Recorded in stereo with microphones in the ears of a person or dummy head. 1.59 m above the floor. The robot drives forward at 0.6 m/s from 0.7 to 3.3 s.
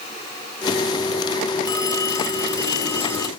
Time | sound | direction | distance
1.6 | a phone ringing | 20° left (ahead or behind) | ?